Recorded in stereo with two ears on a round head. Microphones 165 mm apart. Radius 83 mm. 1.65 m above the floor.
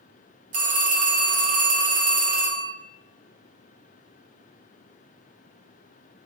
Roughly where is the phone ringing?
Right.